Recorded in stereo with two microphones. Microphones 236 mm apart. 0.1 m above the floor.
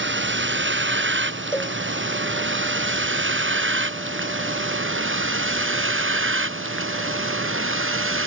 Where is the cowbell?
10° left (ahead or behind).